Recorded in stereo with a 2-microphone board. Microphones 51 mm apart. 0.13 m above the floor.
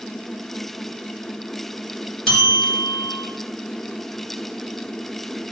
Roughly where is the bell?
Centre.